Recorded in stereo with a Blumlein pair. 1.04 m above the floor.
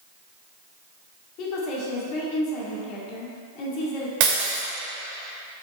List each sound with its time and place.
1.4 s a woman speaking: 40° left, 2 m
4.2 s breaking glass: 45° right, 2.5 m